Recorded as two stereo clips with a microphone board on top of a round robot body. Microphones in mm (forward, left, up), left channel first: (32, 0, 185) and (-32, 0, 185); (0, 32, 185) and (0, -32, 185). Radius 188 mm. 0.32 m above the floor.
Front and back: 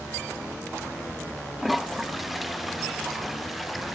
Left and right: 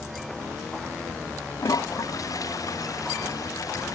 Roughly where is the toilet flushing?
Left.